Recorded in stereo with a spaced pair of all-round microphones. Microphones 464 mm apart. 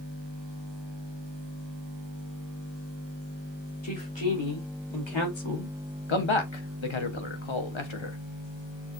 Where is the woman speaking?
65° left (ahead or behind), 3.5 m; by 5.8 s 80° left, 1.2 m.